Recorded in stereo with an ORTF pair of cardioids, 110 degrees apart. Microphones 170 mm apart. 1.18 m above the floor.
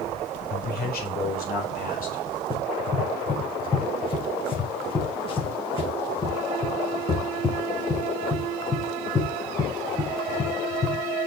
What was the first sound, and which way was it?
A man speaking, 65° left.